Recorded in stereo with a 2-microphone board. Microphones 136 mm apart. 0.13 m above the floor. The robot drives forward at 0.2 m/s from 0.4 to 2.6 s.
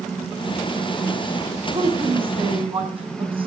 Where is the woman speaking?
40° right (ahead or behind), 4.5 m.